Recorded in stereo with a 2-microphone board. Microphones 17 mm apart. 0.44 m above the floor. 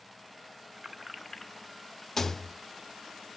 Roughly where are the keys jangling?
Right.